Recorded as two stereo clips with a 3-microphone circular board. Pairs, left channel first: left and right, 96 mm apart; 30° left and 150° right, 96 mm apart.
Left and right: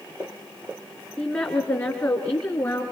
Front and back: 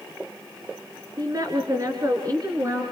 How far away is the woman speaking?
About 3 m.